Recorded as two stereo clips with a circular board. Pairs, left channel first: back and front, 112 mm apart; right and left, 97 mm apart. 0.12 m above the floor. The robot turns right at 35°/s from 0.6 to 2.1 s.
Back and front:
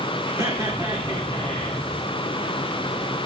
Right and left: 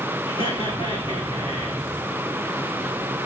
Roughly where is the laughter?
Ahead right.